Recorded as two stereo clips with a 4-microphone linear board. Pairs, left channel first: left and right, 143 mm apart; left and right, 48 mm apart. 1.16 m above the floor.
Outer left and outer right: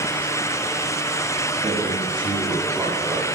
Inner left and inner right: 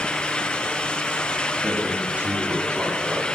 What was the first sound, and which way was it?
A man speaking, 40° right (ahead or behind).